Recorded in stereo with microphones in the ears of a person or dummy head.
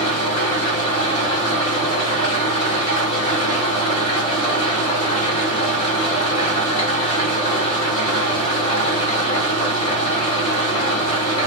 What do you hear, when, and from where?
0.0 s an engine running: 20° left (ahead or behind), 1.8 m